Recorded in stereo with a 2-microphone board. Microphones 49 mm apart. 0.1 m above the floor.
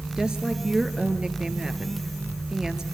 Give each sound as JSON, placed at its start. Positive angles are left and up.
{"t": 0.2, "sound": "a woman speaking", "side_deg": -15, "distance_m": 1.7}